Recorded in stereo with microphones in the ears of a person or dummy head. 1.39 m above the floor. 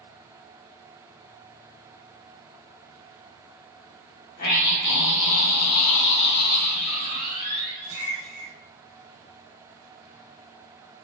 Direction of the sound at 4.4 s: 50° left (ahead or behind).